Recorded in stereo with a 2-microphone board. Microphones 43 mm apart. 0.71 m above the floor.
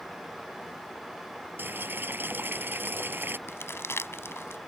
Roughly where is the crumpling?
Left.